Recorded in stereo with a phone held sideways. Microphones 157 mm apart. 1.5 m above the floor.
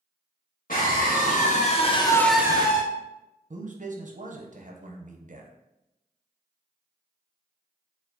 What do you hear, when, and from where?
0.7 s a scream: 60° left (ahead or behind), 1.6 m; by 2.8 s 45° right (ahead or behind), 0.6 m
3.5 s a man speaking: 55° right (ahead or behind), 0.6 m